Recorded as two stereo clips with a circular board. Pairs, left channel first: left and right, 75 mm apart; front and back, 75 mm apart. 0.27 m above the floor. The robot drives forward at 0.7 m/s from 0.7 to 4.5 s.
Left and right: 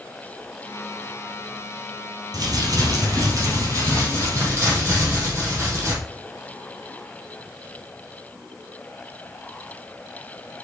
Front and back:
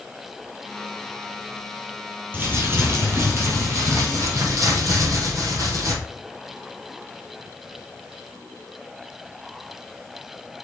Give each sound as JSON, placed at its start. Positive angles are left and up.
{"t": 2.3, "sound": "crumpling", "azimuth_deg": -120, "distance_m": 3.0}